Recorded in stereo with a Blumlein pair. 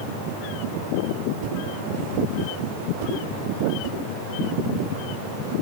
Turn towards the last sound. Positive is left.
turn(degrees=-45)